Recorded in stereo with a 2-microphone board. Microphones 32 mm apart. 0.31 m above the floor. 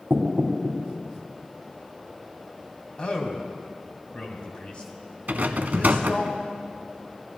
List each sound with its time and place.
0.1 s knocking: 70° right (ahead or behind), 1.5 m
3.0 s a man speaking: 35° left (ahead or behind), 1.7 m
5.3 s a rattle: 65° right (ahead or behind), 0.5 m